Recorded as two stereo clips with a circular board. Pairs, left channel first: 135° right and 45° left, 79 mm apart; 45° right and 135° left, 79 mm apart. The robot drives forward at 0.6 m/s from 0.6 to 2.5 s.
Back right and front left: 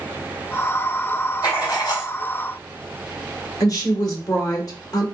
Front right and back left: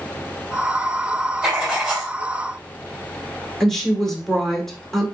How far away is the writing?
About 1.9 m.